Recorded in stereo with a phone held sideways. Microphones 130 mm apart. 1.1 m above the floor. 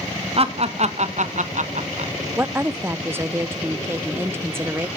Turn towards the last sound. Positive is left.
turn(degrees=-20)  # may be behind; listen again after turning